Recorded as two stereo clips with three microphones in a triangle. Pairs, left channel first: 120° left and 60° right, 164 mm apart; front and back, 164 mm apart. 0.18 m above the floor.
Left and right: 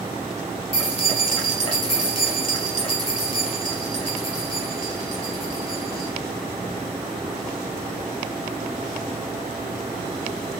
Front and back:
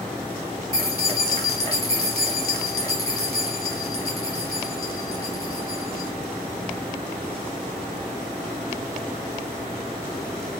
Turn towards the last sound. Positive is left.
turn(degrees=70)